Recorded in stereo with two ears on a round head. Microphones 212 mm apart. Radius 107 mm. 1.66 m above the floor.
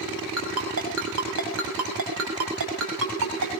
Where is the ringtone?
70° right (ahead or behind), 5.5 m.